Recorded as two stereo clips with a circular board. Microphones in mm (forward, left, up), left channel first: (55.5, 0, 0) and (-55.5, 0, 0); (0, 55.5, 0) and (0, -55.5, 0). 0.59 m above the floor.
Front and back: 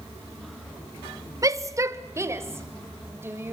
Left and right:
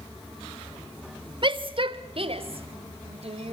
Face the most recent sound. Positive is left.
turn(degrees=-110)